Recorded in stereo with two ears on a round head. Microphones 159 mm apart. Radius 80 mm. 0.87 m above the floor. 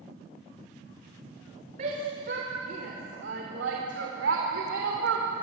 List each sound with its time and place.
1.8 s a shout: 40° right (ahead or behind), 3 m; by 5.2 s 80° right, 3 m